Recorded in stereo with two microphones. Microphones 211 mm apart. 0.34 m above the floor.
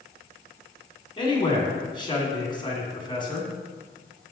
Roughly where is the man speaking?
Left.